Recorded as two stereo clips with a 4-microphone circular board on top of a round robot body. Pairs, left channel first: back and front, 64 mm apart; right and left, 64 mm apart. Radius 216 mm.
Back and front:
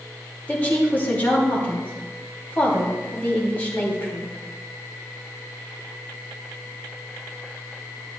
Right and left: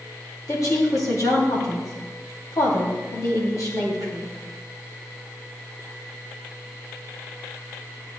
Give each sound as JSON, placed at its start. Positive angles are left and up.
{"t": 0.5, "sound": "a woman speaking", "azimuth_deg": -115, "distance_m": 3.0}